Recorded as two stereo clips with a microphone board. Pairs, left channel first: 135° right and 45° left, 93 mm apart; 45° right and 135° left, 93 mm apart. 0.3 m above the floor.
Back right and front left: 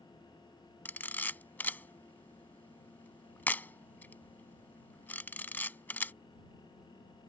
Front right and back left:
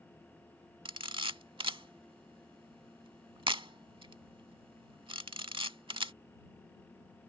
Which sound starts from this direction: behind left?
A camera shutter, at 0.8 s.